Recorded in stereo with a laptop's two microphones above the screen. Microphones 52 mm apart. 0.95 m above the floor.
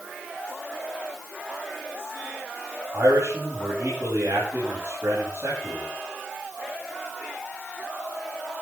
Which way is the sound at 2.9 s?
60° right (ahead or behind).